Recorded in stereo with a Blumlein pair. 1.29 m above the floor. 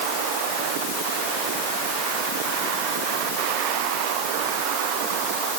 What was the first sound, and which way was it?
Only background noise.